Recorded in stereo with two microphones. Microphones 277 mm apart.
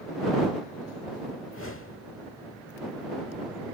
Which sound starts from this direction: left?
A whoosh, at 1.4 s.